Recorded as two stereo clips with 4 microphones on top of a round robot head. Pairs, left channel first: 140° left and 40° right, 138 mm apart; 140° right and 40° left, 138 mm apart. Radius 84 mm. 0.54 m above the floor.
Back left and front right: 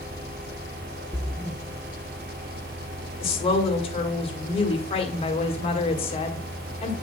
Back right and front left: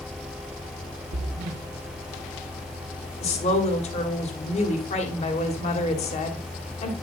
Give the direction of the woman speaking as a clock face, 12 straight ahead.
6 o'clock.